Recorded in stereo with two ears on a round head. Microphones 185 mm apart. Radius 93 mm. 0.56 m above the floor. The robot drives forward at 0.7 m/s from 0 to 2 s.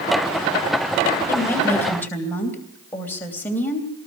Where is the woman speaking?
10° left (ahead or behind), 2.5 m.